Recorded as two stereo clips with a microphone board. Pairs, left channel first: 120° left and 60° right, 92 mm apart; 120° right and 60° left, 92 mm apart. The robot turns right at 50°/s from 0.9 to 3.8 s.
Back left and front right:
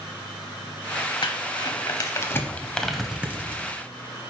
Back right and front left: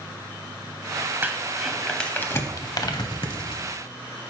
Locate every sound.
1.2 s crumpling: 125° left, 0.7 m; by 3.7 s 110° right, 0.7 m